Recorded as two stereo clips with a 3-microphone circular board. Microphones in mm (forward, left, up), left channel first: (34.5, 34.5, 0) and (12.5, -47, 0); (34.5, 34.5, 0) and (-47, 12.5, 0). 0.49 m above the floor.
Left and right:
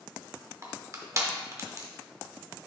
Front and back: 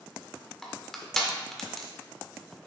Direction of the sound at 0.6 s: 70° right.